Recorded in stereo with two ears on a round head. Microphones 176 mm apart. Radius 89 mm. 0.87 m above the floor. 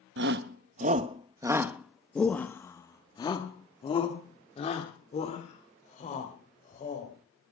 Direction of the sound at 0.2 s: 60° right (ahead or behind).